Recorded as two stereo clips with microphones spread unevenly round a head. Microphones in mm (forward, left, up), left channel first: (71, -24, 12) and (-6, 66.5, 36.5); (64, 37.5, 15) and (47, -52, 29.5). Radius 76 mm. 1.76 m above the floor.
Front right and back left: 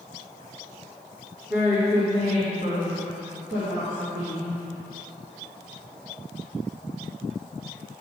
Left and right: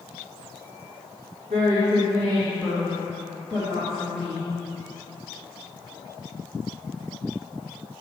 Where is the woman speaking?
150° right, 1.0 m; by 4.5 s 150° left, 2.0 m.